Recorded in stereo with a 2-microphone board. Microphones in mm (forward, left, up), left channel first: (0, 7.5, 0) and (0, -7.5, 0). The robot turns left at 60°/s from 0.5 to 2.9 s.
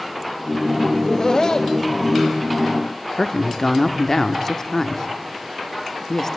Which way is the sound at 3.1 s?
35° left (ahead or behind).